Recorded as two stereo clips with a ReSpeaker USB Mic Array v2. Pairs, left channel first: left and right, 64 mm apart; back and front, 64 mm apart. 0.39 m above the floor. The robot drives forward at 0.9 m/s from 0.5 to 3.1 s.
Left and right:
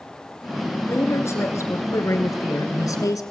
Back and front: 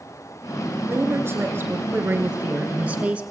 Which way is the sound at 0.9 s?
45° left.